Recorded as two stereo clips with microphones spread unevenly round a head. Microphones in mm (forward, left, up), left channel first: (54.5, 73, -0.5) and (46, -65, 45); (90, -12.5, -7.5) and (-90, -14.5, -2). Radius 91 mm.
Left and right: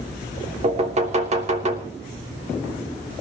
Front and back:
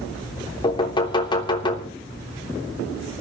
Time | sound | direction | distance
0.6 | knocking | 65° right | 3 m